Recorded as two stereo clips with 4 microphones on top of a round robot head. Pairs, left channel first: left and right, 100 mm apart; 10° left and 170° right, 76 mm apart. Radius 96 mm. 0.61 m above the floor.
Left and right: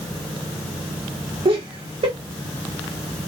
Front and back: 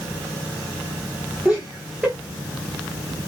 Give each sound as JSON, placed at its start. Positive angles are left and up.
{"t": 1.4, "sound": "laughter", "azimuth_deg": -90, "distance_m": 1.0}